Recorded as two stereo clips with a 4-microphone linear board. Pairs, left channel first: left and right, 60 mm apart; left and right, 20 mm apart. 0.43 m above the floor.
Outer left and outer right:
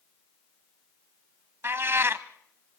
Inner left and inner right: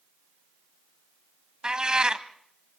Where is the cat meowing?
45° right (ahead or behind), 0.6 m.